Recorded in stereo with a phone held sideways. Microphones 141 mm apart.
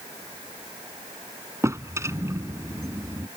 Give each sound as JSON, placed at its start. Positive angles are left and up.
{"t": 1.6, "sound": "a drawer", "side_deg": -20}